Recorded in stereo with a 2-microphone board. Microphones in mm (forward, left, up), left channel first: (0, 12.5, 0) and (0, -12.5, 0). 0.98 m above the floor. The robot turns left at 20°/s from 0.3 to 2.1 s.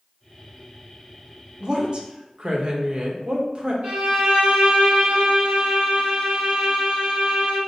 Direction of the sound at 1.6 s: 35° right (ahead or behind).